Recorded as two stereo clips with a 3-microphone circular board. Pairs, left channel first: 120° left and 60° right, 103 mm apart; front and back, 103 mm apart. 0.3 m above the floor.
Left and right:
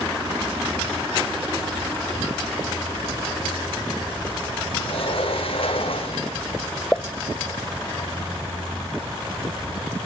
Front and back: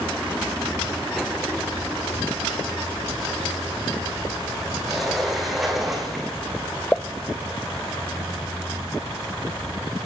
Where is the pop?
60° left, 0.7 m.